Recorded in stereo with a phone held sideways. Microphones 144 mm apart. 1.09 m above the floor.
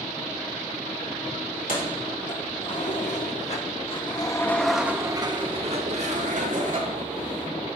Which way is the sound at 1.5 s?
70° left (ahead or behind).